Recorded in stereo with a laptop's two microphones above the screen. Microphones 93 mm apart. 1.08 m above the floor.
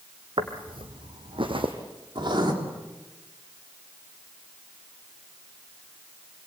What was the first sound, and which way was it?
Footsteps, 60° right (ahead or behind).